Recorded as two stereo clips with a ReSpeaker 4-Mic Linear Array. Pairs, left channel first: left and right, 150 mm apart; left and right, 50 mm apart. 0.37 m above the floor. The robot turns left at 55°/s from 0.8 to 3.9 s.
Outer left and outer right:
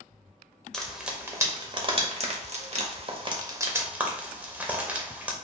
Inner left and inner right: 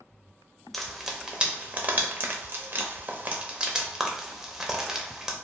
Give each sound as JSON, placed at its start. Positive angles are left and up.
{"t": 0.7, "sound": "frying", "side_deg": 5, "distance_m": 0.6}